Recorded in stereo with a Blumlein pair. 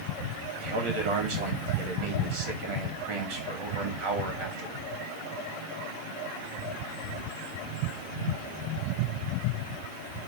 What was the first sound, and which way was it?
A man speaking, 45° right.